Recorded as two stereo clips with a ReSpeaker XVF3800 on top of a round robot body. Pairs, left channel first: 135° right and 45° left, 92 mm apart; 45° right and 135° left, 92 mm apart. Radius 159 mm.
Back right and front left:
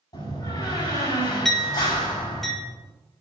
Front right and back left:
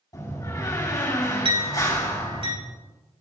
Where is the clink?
140° left, 4 m.